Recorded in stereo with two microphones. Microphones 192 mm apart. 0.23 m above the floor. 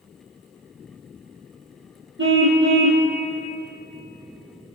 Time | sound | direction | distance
2.2 | a car horn | 80° right | 4 m